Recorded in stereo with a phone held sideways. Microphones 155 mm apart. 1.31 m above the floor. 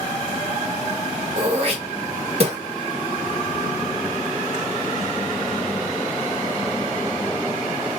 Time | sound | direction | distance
1.4 | throat clearing | 45° right (ahead or behind) | 1.1 m